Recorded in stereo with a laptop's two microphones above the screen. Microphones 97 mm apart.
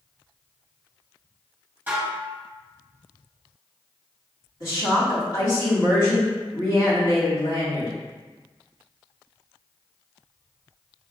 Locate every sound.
1.9 s dishes clattering: 20° right (ahead or behind), 1.1 m
4.6 s a woman speaking: 50° left (ahead or behind), 1.9 m